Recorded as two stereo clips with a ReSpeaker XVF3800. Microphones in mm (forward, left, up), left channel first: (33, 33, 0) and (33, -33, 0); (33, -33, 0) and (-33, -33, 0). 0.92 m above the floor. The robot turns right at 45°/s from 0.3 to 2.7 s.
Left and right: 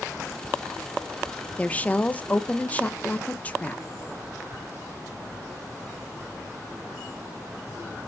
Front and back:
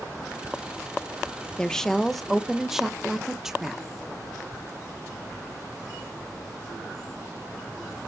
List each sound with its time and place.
1.6 s a woman speaking: 60° left, 0.6 m; by 3.8 s 110° left, 0.6 m